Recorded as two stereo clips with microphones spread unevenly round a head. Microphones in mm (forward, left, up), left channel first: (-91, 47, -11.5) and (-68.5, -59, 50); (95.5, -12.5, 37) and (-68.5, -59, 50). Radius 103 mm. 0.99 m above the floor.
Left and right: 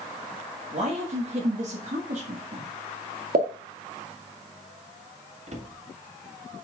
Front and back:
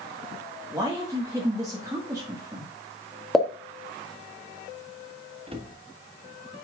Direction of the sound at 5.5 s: 105° right.